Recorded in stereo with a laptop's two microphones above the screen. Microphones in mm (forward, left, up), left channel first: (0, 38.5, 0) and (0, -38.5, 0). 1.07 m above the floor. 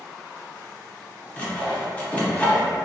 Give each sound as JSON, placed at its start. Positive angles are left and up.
{"t": 1.4, "sound": "sawing", "side_deg": 15, "distance_m": 0.6}